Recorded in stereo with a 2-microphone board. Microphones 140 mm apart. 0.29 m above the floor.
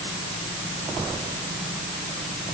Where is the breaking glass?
No breaking glass in this recording.